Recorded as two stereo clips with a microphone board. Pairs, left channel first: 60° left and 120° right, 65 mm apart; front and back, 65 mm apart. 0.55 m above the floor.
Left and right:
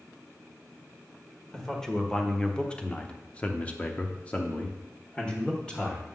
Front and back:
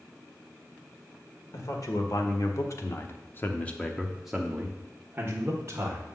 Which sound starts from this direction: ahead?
A man speaking, at 1.5 s.